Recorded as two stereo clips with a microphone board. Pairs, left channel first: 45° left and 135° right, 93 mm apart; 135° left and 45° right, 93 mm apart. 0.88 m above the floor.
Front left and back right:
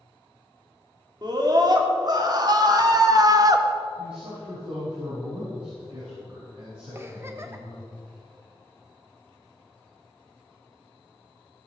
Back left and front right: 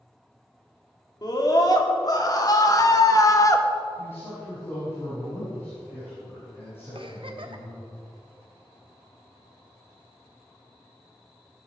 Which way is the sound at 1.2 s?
Straight behind.